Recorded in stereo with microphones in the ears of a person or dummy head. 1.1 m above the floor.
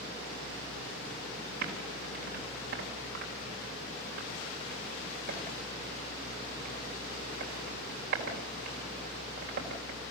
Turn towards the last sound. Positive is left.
turn(degrees=-60)  # may be behind; listen again after turning